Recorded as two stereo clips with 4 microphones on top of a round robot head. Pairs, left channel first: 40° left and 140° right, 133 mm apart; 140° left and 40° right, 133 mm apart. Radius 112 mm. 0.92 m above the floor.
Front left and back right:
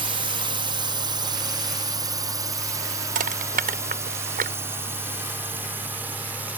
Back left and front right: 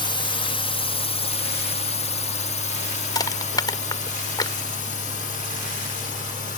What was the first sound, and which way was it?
A drone, straight behind.